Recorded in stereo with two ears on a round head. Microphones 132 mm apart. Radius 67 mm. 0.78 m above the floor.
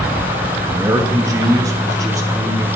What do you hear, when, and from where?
0.7 s a man speaking: 20° right (ahead or behind), 1.2 m; by 2.7 s 25° right (ahead or behind), 2.0 m